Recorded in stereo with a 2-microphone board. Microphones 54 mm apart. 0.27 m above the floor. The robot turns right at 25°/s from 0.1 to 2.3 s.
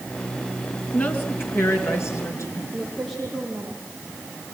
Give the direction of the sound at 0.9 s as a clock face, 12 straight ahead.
11 o'clock.